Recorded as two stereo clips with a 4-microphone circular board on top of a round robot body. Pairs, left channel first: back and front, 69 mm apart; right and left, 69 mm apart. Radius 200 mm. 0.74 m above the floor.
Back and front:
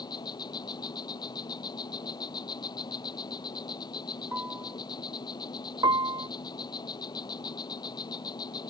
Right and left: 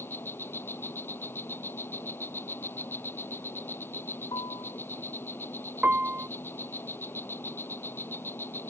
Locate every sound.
0.0 s an insect: 150° right
4.3 s a piano: 70° right
5.8 s a piano: 20° left